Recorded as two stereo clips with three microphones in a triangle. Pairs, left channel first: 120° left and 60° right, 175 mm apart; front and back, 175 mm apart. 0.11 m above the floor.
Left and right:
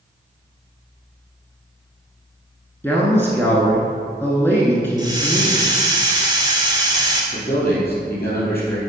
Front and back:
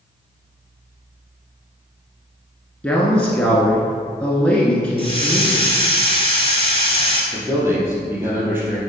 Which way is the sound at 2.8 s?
65° left.